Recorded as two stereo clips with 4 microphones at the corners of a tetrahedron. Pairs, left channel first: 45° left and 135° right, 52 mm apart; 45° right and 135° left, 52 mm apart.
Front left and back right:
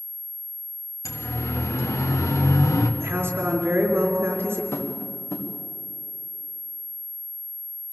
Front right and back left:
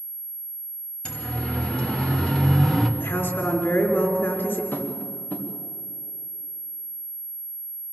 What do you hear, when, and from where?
1.1 s a siren: 25° left, 2.5 m; by 2.9 s 35° left, 1.4 m
3.0 s a woman speaking: 90° right, 4 m
4.7 s tapping: 10° left, 2.5 m